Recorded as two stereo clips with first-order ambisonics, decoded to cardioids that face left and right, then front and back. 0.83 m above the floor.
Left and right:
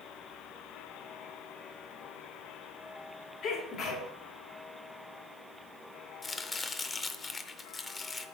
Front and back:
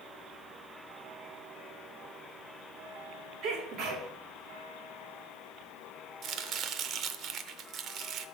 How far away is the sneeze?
About 2.5 m.